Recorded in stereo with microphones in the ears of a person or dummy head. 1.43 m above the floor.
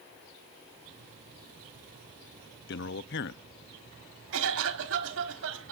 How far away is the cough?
About 4.5 m.